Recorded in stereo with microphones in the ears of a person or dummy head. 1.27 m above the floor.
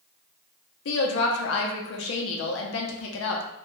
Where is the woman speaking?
80° left, 0.6 m.